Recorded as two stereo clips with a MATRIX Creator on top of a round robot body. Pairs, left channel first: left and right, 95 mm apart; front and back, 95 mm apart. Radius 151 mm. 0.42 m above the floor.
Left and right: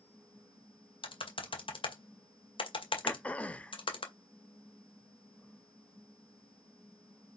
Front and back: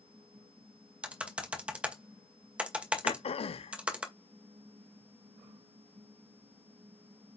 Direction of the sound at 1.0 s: 100° left.